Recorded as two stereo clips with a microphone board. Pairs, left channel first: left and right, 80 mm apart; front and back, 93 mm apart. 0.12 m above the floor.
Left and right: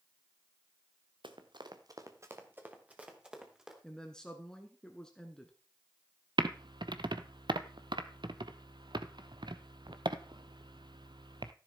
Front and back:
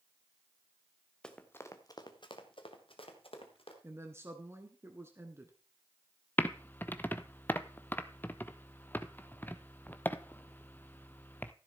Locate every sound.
1.2 s running footsteps: 80° right, 1.3 m; by 3.7 s 5° right, 3 m
3.8 s a woman speaking: 160° left, 1.2 m
6.4 s typing on a keyboard: 70° right, 0.6 m